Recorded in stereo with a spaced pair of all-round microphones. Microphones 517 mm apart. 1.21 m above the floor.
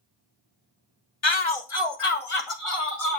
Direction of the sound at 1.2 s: 55° left (ahead or behind).